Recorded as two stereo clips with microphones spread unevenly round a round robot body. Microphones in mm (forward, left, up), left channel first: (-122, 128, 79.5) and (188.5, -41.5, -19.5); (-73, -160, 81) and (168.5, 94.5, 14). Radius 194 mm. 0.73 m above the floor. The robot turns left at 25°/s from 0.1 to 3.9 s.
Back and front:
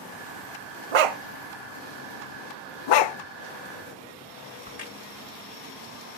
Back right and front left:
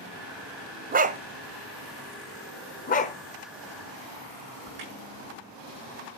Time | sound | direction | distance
0.9 | a dog barking | 25° right | 0.9 m
2.9 | a dog barking | 160° left | 0.8 m
4.7 | a crack | 85° left | 7.5 m